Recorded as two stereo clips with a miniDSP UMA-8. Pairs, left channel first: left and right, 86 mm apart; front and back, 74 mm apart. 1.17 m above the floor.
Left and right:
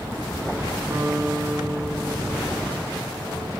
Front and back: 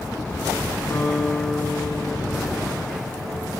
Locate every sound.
0.9 s a guitar: 40° right, 3 m